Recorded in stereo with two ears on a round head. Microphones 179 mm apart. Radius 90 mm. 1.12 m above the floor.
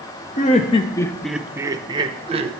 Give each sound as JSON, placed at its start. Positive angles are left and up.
{"t": 0.4, "sound": "laughter", "side_deg": 35, "distance_m": 0.6}